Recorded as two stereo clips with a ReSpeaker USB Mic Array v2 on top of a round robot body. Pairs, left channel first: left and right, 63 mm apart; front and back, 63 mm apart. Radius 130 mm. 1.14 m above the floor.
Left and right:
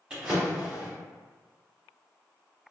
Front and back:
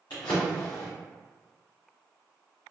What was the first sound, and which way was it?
A drawer, 20° right.